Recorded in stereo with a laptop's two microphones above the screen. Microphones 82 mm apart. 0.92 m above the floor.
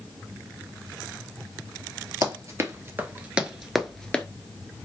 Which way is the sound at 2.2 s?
45° right (ahead or behind).